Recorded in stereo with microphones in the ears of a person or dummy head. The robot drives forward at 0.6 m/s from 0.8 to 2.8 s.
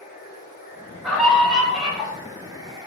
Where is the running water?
10° right (ahead or behind), 1.7 m; by 2.9 s 25° right (ahead or behind), 0.6 m.